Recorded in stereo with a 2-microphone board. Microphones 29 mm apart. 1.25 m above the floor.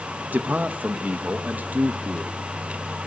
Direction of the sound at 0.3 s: 70° right (ahead or behind).